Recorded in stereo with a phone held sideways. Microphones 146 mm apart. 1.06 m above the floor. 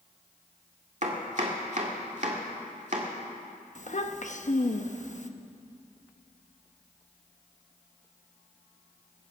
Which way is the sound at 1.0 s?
55° right (ahead or behind).